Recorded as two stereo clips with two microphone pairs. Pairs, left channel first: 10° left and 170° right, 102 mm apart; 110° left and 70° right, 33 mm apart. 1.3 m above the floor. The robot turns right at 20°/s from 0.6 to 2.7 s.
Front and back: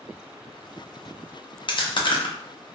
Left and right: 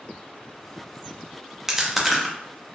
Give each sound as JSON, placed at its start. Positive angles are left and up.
{"t": 1.7, "sound": "chewing", "azimuth_deg": 10, "distance_m": 0.5}